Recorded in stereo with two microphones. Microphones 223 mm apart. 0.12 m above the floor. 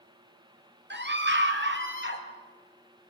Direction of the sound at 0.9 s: 55° right (ahead or behind).